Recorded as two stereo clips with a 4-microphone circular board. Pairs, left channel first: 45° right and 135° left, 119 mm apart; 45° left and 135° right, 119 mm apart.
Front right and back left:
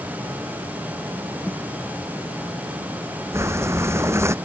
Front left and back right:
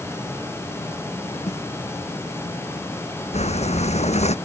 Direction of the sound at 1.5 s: 35° left.